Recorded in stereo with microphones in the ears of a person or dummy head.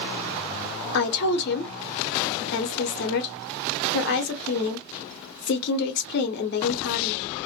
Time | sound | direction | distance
0.9 | a woman speaking | 55° left (ahead or behind) | 0.8 m